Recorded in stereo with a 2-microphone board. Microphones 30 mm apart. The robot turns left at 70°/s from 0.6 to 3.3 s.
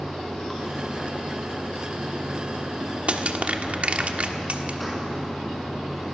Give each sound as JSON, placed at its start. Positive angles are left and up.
{"t": 0.0, "sound": "running water", "azimuth_deg": 15, "distance_m": 5.5}
{"t": 3.1, "sound": "crushing", "side_deg": -50, "distance_m": 1.4}